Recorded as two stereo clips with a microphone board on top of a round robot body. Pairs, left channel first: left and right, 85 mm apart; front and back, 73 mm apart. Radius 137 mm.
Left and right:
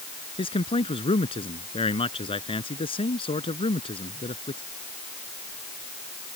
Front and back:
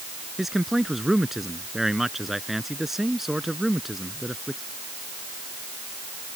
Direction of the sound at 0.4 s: 95° left.